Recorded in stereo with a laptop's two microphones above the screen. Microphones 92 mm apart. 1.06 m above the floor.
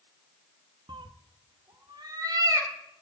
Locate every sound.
0.9 s a cat meowing: 60° right (ahead or behind), 0.6 m; by 2.7 s 40° right (ahead or behind), 2 m